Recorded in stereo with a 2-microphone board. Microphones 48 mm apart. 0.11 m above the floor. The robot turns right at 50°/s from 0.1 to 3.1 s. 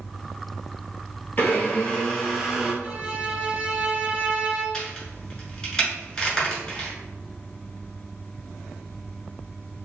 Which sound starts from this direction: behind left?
A blender, at 1.4 s.